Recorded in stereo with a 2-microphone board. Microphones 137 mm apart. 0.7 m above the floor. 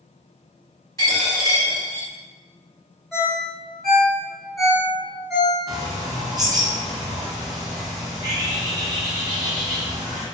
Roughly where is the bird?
Right.